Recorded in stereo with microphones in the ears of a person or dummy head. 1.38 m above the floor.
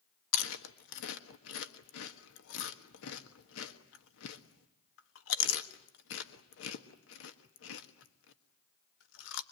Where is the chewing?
80° left, 1.5 m.